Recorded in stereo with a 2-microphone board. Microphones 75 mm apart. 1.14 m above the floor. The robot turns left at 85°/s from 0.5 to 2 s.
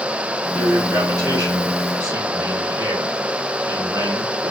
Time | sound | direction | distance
0.5 | a man speaking | 20° left | 1.9 m